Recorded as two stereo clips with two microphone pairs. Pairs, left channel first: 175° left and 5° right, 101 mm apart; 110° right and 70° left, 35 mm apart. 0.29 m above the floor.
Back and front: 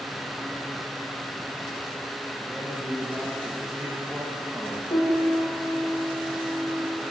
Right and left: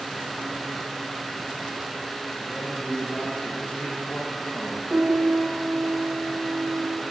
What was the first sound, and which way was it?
A man speaking, 95° right.